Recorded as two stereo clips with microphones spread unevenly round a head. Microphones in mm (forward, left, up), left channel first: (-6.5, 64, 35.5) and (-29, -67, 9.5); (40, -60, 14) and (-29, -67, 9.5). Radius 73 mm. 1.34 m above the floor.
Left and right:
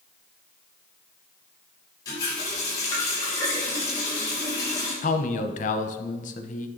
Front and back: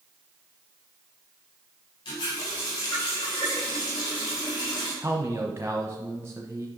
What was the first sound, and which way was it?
A running tap, 15° left.